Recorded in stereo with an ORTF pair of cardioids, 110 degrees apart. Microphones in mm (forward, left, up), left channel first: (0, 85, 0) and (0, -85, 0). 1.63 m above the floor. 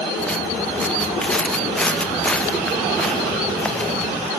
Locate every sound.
0.2 s footsteps: 5° left